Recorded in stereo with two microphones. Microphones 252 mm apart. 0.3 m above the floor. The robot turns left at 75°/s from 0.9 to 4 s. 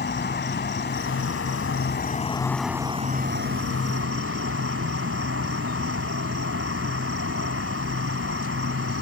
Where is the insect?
130° left; by 9.0 s 105° right.